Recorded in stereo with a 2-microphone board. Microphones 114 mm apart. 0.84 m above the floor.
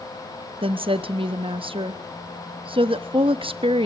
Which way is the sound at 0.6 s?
55° right (ahead or behind).